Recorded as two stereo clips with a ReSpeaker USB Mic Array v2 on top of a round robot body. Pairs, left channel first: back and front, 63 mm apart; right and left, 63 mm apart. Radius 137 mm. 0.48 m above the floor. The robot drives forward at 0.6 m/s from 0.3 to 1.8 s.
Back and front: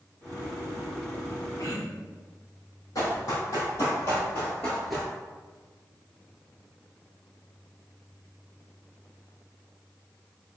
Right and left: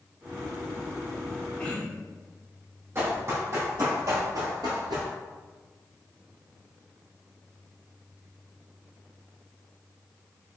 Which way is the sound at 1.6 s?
160° right.